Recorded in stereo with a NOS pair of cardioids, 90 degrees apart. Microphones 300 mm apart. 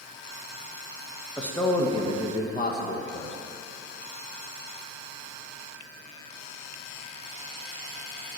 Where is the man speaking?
5° left, 1.5 m; by 3.4 s 45° left, 1.5 m.